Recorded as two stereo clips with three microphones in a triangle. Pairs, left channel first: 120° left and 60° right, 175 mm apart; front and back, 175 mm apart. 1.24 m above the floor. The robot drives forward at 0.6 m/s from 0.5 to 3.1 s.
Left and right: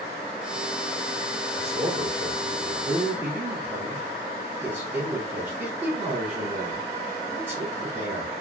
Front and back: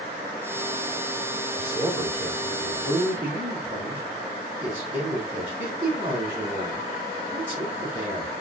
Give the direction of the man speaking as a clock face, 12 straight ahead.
4 o'clock.